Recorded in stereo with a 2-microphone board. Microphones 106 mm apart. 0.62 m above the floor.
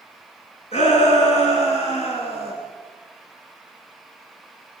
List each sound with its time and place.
0.7 s a shout: 80° left, 8.5 m